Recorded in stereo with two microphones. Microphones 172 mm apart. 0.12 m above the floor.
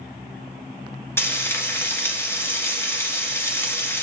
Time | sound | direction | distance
1.2 | frying | 15° left (ahead or behind) | 2.0 m